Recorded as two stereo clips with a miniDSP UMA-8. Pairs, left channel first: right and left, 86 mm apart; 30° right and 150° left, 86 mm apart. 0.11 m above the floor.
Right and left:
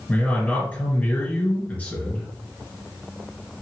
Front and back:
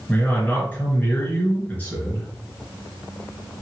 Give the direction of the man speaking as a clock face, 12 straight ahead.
2 o'clock.